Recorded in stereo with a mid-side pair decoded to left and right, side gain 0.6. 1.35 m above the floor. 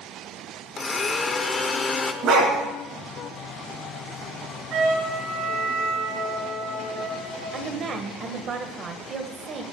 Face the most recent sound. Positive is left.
turn(degrees=-40)